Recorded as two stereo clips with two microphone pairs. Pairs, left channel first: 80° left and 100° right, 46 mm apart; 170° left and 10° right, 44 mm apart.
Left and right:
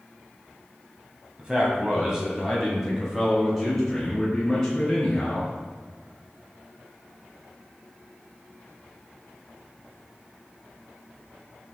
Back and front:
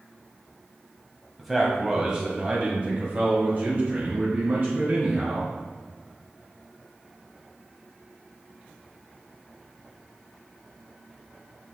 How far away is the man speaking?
About 1.7 m.